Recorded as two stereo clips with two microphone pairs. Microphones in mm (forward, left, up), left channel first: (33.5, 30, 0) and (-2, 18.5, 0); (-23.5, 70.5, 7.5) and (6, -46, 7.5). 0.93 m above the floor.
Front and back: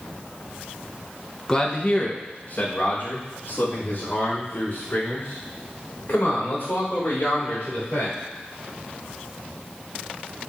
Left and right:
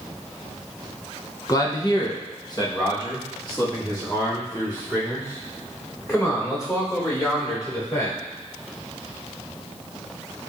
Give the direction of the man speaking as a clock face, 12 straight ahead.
9 o'clock.